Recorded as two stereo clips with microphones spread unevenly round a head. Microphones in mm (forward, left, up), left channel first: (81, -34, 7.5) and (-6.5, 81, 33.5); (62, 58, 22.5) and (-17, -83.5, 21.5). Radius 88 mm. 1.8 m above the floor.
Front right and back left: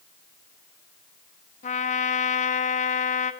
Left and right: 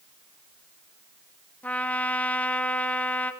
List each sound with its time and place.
1.6 s a trumpet: 20° right, 1.4 m